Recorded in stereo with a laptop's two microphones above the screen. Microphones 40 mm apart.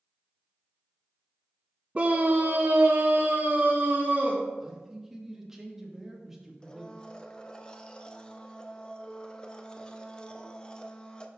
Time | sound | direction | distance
1.9 | a scream | 30° right (ahead or behind) | 0.6 m
4.6 | a man speaking | 10° right (ahead or behind) | 1.6 m
6.6 | a blender | 20° left (ahead or behind) | 0.7 m